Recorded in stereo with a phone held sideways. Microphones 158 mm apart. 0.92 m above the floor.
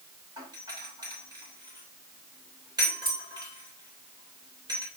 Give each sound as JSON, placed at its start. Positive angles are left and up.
{"t": 0.4, "sound": "a doorbell", "side_deg": -25, "distance_m": 6.5}